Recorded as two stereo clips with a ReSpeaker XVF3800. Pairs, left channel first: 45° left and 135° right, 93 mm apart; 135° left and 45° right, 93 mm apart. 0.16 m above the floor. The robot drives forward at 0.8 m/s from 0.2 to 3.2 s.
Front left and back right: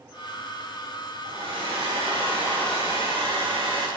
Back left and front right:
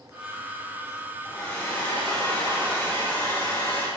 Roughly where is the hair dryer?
Behind right.